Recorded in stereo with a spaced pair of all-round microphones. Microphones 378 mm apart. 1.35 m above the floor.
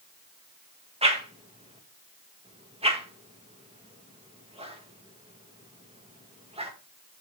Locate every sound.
1.0 s a whoosh: 15° right (ahead or behind), 1.5 m